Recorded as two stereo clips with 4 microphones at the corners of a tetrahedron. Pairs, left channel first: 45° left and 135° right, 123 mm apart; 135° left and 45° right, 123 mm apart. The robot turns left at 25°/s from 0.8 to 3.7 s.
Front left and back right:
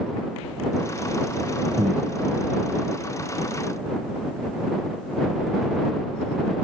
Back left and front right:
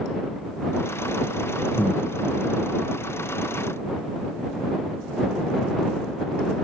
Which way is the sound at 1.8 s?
145° right.